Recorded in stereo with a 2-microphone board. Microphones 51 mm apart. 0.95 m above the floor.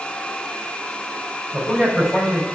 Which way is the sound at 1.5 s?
5° left (ahead or behind).